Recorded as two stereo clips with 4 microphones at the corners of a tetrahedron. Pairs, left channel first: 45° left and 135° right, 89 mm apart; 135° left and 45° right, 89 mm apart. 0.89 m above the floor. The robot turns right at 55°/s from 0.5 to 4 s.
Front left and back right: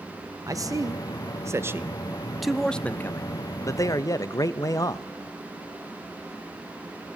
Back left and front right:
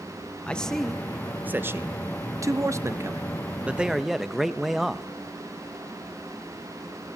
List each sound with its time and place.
0.5 s a man speaking: 155° right, 0.7 m; by 5.0 s 40° left, 0.7 m